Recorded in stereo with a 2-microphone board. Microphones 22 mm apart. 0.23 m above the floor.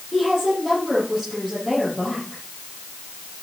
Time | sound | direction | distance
0.1 | a woman speaking | 10° left (ahead or behind) | 8.5 m